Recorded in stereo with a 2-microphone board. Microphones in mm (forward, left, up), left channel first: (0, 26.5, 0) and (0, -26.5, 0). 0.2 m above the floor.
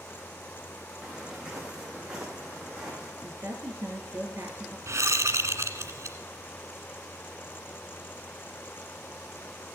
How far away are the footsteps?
About 3.5 m.